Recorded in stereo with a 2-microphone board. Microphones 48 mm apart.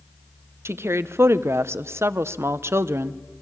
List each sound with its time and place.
0.7 s a woman speaking: 65° right (ahead or behind), 0.7 m